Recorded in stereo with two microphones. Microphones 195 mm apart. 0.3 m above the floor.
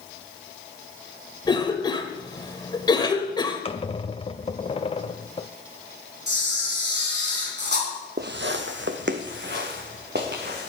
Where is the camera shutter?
60° right (ahead or behind), 3.5 m.